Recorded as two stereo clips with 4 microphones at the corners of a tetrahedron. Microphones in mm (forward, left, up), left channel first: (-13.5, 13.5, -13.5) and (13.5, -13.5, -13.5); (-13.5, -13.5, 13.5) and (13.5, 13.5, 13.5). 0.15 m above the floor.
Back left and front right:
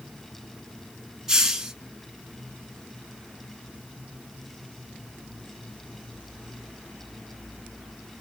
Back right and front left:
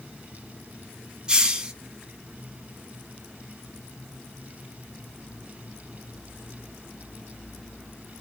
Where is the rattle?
I don't hear a rattle.